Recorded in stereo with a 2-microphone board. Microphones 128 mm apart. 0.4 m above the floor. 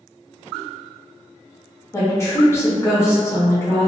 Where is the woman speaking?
20° left (ahead or behind), 0.9 m.